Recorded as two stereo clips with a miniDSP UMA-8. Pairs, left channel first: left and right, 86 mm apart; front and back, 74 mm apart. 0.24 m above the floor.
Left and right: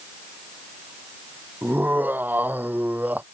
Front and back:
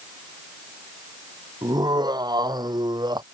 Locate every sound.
1.6 s laughter: 160° right